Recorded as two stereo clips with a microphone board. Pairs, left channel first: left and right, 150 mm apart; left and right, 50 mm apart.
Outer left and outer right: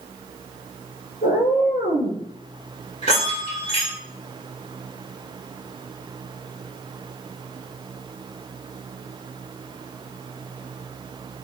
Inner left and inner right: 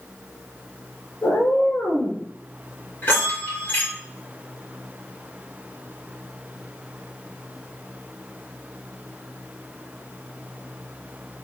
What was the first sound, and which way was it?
A cat meowing, 80° left.